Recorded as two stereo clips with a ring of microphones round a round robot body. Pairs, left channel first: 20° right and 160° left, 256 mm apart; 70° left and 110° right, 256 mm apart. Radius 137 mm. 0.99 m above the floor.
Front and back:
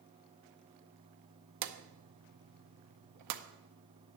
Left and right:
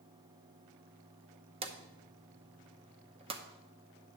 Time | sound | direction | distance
1.6 | a drawer | straight behind | 0.7 m